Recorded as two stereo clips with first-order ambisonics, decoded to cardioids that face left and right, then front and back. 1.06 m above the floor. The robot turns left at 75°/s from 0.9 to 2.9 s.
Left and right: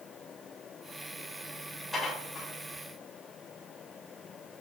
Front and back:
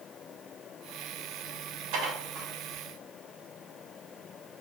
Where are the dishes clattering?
175° right, 3 m; by 2.5 s 140° left, 3 m.